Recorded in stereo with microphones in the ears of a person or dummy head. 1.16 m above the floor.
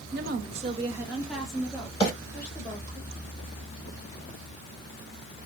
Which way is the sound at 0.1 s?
50° right (ahead or behind).